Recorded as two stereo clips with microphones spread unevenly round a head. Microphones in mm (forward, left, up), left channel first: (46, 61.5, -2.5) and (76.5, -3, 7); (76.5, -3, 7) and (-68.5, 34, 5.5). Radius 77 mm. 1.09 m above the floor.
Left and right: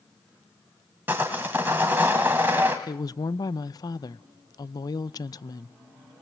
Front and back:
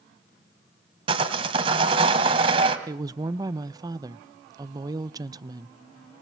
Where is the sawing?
135° right, 1.9 m.